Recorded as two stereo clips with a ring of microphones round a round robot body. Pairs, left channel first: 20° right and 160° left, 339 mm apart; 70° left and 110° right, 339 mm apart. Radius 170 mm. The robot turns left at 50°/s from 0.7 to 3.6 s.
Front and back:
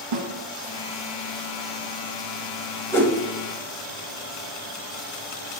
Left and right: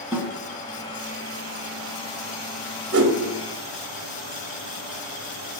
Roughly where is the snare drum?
Behind.